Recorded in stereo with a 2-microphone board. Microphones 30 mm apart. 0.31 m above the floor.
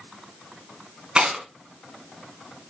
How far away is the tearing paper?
About 3 m.